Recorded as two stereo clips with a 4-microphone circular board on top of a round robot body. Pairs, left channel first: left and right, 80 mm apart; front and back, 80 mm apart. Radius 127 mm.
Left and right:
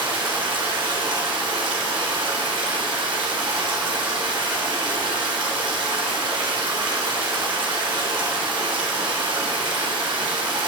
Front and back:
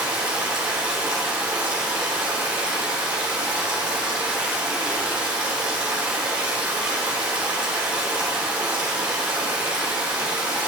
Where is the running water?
100° right, 3 m.